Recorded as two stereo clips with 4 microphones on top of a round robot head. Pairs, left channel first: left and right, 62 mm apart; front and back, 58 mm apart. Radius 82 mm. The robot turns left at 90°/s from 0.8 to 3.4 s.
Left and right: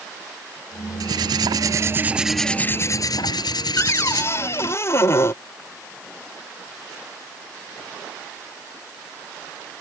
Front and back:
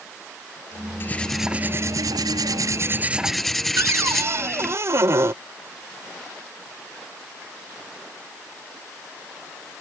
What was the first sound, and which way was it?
Cutlery clinking, 60° right.